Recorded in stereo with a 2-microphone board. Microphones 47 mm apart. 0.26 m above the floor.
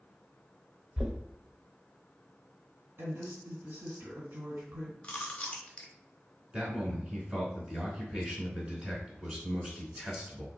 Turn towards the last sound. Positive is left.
turn(degrees=-20)  # may be behind; listen again after turning